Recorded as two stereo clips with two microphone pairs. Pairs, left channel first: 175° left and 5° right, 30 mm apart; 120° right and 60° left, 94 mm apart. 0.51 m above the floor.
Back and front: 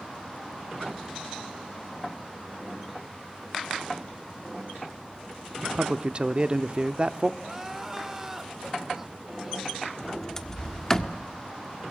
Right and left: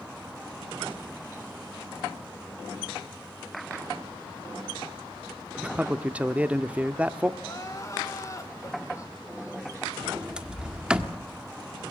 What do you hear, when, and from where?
5.6 s a man speaking: 10° right, 0.8 m
7.4 s crying: 75° right, 1.6 m
10.0 s a sliding door: 125° left, 1.4 m